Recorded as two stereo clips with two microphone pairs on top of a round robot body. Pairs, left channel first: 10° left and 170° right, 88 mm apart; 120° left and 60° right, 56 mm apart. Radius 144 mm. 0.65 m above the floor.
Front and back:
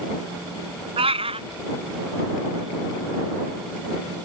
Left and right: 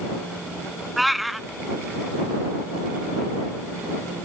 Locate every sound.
1.0 s a cat meowing: 145° right